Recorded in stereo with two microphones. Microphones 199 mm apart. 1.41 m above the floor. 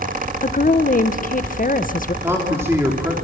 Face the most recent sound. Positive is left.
turn(degrees=-10)  # may be behind; listen again after turning